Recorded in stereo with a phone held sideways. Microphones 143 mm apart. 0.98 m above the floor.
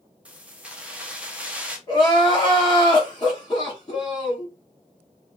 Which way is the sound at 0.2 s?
10° right (ahead or behind).